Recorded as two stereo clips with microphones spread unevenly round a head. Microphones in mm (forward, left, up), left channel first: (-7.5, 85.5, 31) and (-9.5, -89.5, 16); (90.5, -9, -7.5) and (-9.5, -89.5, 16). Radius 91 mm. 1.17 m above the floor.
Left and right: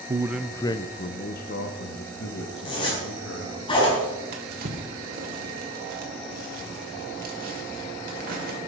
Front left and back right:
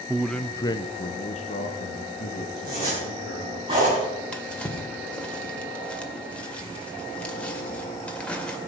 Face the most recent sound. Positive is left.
turn(degrees=-45)